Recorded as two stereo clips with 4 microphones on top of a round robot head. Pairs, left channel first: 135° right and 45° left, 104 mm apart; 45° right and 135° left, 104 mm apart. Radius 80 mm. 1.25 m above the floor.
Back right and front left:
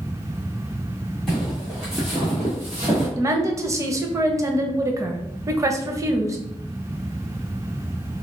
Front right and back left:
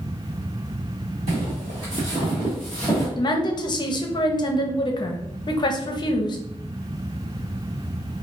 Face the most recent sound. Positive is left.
turn(degrees=-10)